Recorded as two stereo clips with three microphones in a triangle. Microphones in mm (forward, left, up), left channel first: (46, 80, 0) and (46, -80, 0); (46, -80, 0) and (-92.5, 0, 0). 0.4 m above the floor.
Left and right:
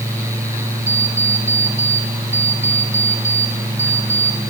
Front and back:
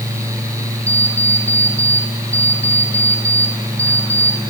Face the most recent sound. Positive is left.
turn(degrees=50)